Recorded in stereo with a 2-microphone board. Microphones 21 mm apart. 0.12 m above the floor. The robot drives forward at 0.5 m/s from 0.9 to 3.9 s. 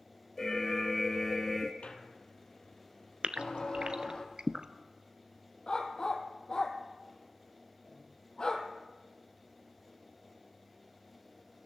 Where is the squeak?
60° left (ahead or behind), 1.7 m; by 4.2 s 40° left (ahead or behind), 2.5 m.